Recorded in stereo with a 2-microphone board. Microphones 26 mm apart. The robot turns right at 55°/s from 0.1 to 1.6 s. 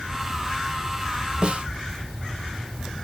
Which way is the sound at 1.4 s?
40° right (ahead or behind).